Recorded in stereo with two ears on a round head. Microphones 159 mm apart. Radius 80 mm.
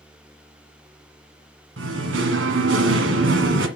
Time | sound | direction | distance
1.8 | singing | 80° right | 1.7 m